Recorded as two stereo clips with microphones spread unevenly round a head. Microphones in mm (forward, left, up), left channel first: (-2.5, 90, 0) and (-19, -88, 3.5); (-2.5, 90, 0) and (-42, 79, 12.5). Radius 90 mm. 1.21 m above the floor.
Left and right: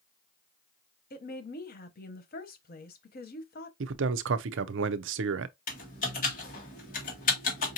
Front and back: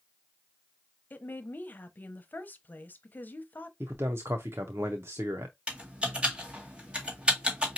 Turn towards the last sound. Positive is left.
turn(degrees=130)